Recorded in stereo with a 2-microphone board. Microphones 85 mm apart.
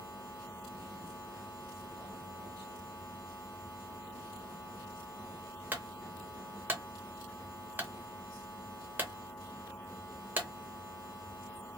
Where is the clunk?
20° right (ahead or behind), 0.9 m.